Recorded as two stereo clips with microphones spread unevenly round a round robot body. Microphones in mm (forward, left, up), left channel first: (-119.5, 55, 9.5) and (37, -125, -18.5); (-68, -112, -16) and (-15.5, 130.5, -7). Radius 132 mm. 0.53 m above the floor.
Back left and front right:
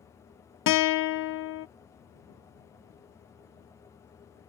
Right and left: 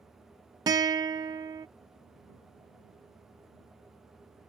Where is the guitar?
150° left.